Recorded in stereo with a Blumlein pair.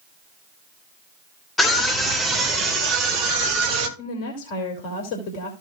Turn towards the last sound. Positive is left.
turn(degrees=45)